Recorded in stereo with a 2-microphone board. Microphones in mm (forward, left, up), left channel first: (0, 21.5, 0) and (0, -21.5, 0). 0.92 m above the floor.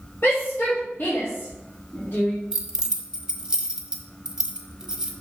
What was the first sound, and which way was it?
A shout, 70° left (ahead or behind).